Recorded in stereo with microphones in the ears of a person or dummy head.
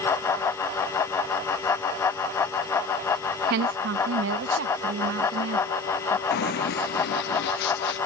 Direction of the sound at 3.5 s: 60° right (ahead or behind).